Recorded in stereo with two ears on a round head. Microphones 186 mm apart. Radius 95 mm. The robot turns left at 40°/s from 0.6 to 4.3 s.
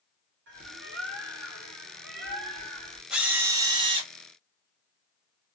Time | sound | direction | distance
0.5 | a bird | 55° right | 1.9 m
3.1 | a drill | 5° right | 1.0 m